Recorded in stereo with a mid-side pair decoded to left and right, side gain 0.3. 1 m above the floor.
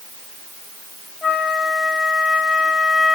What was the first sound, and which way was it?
A flute, 45° left.